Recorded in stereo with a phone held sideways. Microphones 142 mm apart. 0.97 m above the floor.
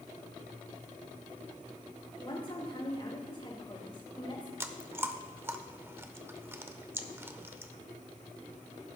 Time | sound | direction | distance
2.2 | a woman speaking | 40° left (ahead or behind) | 3.5 m
4.6 | chewing | 15° right (ahead or behind) | 0.8 m